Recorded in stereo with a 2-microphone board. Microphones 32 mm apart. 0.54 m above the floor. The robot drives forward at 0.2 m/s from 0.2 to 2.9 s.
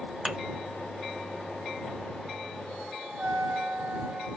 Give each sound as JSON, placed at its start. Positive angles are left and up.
{"t": 0.2, "sound": "a thud", "side_deg": -20, "distance_m": 0.9}
{"t": 3.2, "sound": "a trumpet", "side_deg": -65, "distance_m": 0.7}